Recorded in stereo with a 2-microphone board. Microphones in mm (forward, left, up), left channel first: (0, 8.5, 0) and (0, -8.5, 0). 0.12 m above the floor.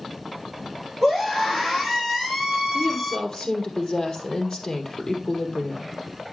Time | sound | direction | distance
1.0 | a scream | 5° right (ahead or behind) | 5.5 m
2.7 | a woman speaking | 25° left (ahead or behind) | 3 m